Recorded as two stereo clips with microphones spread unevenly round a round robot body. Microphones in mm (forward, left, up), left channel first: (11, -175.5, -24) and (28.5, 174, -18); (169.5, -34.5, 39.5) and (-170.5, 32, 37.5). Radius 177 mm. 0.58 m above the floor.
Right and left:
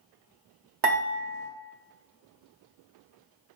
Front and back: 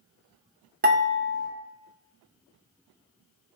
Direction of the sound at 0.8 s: 105° left.